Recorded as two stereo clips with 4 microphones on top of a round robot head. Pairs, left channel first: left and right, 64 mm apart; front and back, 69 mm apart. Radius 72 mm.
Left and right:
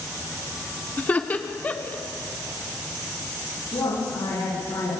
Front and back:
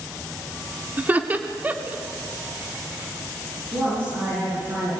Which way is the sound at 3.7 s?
125° left.